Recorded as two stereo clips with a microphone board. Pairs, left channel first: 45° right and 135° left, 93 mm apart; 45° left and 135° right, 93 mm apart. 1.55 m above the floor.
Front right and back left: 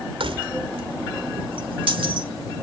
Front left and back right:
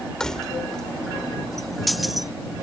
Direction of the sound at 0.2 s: 125° left.